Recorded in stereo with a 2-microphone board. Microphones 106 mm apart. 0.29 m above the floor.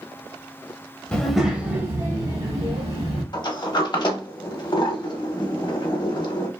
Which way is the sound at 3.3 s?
45° left (ahead or behind).